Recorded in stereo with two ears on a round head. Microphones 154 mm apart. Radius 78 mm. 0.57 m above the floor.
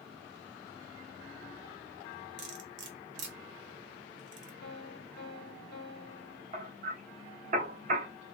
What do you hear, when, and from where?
2.4 s cutlery clinking: 75° right (ahead or behind), 1.0 m
4.6 s a piano: 65° left (ahead or behind), 1.2 m
6.5 s hammering: 45° right (ahead or behind), 1.2 m